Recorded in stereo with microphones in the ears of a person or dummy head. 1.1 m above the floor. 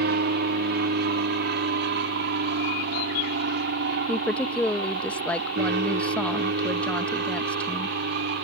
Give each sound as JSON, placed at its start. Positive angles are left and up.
{"t": 0.0, "sound": "an aircraft", "side_deg": -50}
{"t": 4.1, "sound": "a woman speaking", "side_deg": 5}